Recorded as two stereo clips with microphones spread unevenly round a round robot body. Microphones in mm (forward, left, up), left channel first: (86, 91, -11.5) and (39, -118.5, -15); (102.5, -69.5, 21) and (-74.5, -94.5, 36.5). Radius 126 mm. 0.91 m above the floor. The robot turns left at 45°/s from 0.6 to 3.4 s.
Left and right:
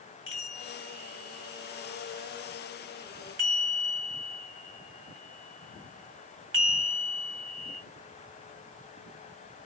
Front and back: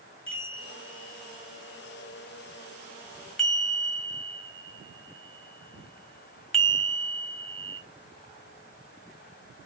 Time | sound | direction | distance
0.3 | a chime | 45° left | 2.5 m